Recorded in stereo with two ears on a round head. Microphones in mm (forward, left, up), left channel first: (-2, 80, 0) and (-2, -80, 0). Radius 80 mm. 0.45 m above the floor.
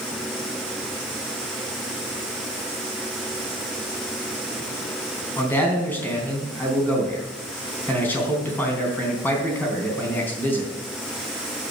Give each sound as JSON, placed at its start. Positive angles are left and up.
{"t": 5.4, "sound": "a man speaking", "side_deg": 10, "distance_m": 3.5}